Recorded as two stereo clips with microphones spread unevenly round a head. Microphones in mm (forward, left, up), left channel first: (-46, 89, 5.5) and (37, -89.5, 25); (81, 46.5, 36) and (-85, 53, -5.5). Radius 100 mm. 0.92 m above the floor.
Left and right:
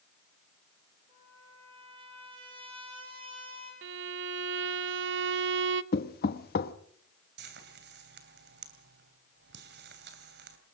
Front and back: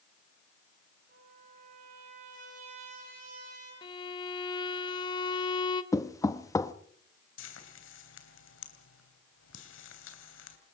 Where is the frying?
25° right, 3 m.